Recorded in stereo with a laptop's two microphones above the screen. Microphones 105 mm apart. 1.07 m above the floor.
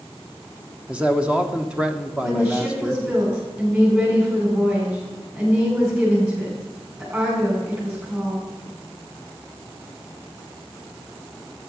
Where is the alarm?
I don't hear an alarm.